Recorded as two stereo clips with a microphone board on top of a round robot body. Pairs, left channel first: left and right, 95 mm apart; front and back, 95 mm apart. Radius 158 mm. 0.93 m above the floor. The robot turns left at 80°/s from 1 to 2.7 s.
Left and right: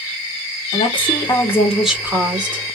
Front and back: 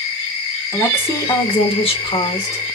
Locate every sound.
0.7 s a woman speaking: 65° left, 2.5 m; by 2.8 s 70° right, 2.5 m